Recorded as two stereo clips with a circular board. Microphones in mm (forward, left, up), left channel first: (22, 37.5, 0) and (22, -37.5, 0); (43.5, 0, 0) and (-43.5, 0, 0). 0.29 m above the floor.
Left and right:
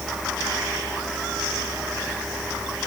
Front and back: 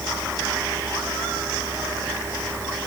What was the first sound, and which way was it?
Only background noise.